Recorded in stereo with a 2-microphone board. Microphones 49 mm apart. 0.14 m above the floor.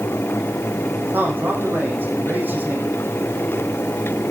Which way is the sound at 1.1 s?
35° right (ahead or behind).